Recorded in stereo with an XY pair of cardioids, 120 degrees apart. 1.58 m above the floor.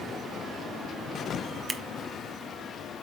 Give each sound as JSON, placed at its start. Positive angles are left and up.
{"t": 1.7, "sound": "scissors", "azimuth_deg": -30, "distance_m": 1.1}